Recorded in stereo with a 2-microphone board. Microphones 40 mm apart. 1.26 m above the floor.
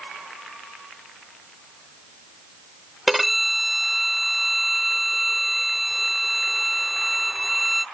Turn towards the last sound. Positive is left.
turn(degrees=-5)  # may be behind; listen again after turning